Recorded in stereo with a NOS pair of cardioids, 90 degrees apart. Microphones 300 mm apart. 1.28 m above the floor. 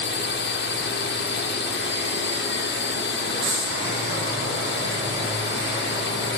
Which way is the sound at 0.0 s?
40° left.